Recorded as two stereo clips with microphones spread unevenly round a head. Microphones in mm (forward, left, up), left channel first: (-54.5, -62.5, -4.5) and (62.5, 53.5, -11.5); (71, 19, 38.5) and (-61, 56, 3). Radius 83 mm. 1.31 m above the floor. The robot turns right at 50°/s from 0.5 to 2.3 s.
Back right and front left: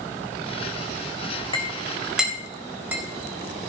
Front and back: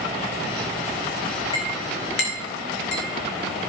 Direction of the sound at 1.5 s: 75° right.